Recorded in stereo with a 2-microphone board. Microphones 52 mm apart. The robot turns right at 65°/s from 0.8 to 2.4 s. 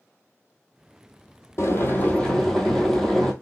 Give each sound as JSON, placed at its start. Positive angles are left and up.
{"t": 1.6, "sound": "boiling", "azimuth_deg": 115, "distance_m": 0.8}